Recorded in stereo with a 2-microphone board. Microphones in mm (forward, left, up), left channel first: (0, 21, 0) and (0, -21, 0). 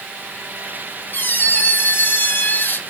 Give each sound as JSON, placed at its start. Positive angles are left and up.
{"t": 1.1, "sound": "a squeak", "side_deg": 55, "distance_m": 0.7}